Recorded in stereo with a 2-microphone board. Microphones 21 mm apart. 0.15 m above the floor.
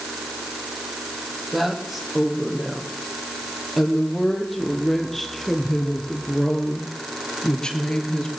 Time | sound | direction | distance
1.5 | a woman speaking | 5° right (ahead or behind) | 6 m